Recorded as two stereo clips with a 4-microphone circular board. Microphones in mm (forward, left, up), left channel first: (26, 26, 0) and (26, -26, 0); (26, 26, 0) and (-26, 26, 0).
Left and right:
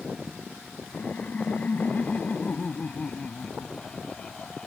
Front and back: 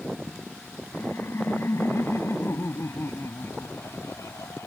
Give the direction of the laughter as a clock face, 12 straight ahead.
11 o'clock.